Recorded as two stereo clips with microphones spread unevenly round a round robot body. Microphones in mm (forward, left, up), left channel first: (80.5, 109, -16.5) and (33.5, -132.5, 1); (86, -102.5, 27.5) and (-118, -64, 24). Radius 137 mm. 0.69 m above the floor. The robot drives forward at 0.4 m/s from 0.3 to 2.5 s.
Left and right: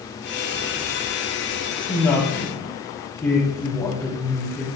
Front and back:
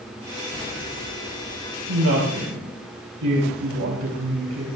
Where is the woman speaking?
160° left, 3.5 m.